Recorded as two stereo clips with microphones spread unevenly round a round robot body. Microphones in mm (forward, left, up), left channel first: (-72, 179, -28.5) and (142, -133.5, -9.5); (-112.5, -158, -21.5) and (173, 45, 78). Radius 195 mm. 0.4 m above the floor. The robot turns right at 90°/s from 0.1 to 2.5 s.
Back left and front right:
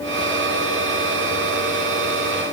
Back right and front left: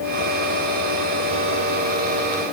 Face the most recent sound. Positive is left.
No sound to turn to.